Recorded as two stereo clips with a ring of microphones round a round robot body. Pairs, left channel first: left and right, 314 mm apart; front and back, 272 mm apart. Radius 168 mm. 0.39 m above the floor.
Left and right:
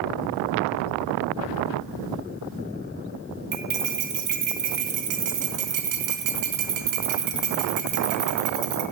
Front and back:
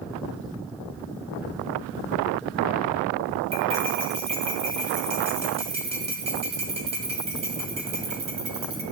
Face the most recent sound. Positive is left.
turn(degrees=-110)